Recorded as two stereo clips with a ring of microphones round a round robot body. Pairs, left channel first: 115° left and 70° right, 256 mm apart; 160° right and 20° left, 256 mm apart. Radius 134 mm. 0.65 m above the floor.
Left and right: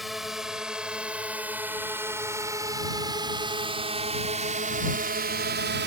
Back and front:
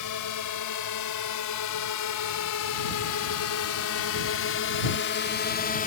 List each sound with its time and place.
0.0 s a drone: 155° right; by 5.9 s 105° right